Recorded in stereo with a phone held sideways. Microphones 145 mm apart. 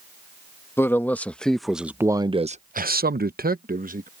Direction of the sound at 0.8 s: 15° left (ahead or behind).